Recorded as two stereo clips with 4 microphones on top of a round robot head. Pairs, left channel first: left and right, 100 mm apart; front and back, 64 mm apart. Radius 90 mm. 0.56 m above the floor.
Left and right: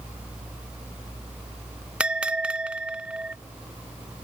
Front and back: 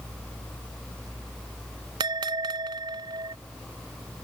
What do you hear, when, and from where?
2.0 s a bell: 170° right